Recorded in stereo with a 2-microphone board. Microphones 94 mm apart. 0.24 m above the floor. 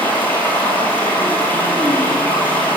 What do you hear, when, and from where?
0.0 s running water: 20° left (ahead or behind), 1.3 m